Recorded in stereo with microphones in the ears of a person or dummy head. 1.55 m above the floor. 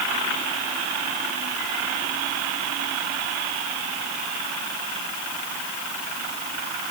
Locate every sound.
Only background noise.